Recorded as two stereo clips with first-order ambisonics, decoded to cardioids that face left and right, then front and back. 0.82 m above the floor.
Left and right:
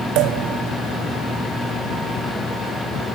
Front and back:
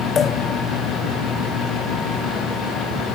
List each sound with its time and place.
0.1 s a pop: 65° right